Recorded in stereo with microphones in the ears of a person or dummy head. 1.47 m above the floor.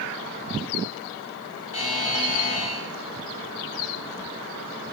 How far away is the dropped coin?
No dropped coin in this recording.